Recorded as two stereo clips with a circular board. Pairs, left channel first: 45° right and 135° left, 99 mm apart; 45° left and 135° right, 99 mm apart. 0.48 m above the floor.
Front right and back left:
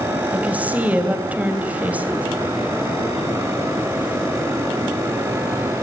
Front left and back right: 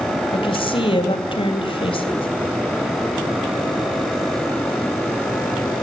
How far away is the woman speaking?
About 3 m.